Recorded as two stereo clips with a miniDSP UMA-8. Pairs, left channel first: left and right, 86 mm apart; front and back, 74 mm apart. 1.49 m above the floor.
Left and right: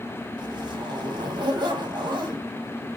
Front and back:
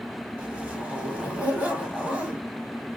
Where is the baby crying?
No baby crying in this recording.